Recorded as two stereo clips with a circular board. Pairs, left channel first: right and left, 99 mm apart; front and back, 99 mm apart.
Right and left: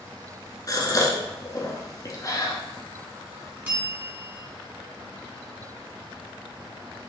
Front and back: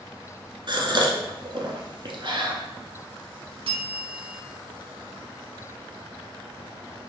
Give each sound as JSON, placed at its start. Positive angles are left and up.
{"t": 0.7, "sound": "a gasp", "azimuth_deg": -140, "distance_m": 0.9}
{"t": 3.6, "sound": "a bell", "azimuth_deg": 160, "distance_m": 1.3}